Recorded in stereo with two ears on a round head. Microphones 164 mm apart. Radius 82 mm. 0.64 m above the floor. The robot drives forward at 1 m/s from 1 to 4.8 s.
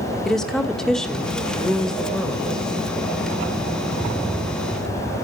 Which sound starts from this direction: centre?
A woman speaking, at 0.2 s.